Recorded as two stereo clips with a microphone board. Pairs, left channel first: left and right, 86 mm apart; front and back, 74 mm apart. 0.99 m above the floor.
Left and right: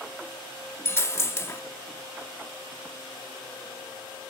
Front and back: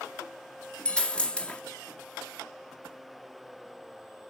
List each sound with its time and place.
0.8 s a dropped coin: 60° left, 0.5 m